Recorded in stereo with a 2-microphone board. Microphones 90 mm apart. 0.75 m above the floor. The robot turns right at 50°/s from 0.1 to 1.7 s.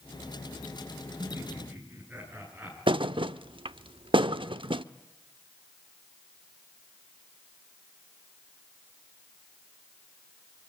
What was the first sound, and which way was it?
Laughter, 45° right (ahead or behind).